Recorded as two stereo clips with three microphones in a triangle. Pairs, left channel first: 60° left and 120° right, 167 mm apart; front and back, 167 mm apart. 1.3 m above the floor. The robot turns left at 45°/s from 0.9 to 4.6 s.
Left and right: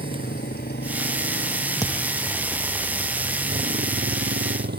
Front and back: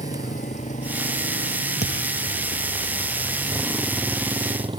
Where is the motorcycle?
40° left; by 4.8 s 120° right.